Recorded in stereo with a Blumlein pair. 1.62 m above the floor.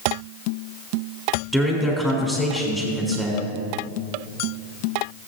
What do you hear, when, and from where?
1.5 s a man speaking: 5° right, 3.5 m